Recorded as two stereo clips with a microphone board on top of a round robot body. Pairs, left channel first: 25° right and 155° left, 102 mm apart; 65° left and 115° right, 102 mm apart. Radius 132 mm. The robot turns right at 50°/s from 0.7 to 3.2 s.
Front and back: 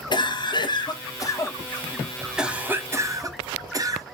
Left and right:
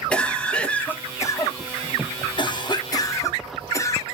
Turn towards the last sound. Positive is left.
turn(degrees=115)